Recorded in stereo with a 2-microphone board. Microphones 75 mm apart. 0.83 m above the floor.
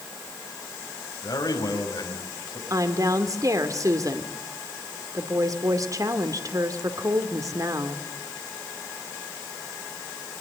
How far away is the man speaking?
About 6 m.